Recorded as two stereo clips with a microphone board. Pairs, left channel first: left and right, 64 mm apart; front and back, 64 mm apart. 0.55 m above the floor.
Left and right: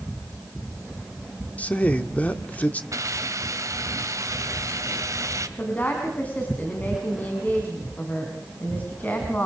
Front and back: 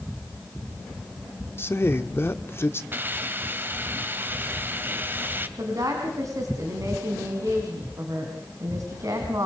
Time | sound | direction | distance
1.6 | a man speaking | 30° left | 1.4 m
2.9 | a hiss | 120° right | 1.8 m
5.6 | a woman speaking | 150° left | 4.5 m